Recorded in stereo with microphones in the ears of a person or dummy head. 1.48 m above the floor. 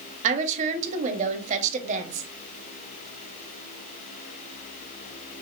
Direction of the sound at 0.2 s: 40° right (ahead or behind).